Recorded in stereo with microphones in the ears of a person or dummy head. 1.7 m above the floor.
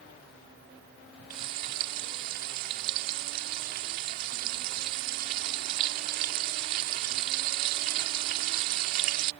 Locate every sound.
1.3 s frying: 55° right (ahead or behind)